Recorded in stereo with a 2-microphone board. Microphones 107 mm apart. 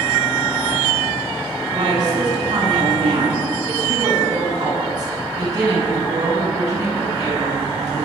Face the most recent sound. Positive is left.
turn(degrees=-35)  # may be behind; listen again after turning